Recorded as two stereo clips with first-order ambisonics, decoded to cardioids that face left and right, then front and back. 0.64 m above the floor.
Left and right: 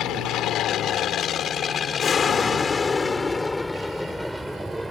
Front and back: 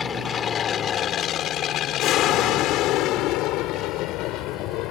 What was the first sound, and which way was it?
An aircraft, 60° left.